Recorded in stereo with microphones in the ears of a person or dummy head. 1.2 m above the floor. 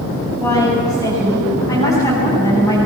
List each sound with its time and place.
0.4 s a woman speaking: 15° left (ahead or behind), 8.5 m